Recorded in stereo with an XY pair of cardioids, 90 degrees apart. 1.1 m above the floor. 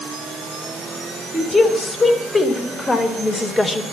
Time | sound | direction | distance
1.3 | a woman speaking | 30° left | 5 m